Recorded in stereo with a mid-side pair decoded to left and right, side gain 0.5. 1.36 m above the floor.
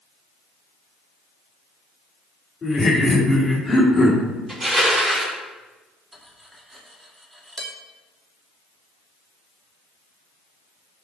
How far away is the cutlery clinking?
About 2.0 m.